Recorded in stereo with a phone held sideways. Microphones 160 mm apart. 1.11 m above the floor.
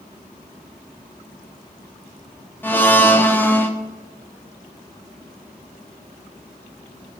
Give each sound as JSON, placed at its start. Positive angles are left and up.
{"t": 2.6, "sound": "a blender", "side_deg": 15, "distance_m": 0.7}